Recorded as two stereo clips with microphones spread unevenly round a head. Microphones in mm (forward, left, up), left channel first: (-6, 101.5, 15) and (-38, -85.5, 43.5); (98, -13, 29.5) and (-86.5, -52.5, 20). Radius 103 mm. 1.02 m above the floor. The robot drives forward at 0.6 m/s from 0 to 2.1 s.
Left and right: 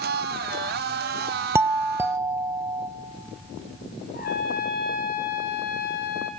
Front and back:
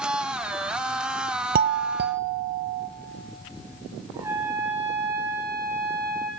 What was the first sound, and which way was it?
A doorbell, straight behind.